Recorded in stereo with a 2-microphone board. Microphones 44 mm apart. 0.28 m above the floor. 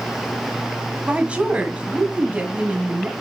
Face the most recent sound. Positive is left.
turn(degrees=-25)  # may be behind; listen again after turning